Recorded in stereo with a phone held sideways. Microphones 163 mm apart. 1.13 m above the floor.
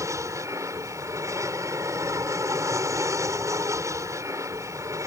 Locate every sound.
0.0 s an aircraft: 20° right (ahead or behind)